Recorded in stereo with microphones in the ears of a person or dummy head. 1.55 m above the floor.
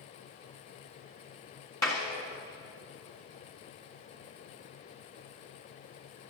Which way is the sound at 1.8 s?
15° left (ahead or behind).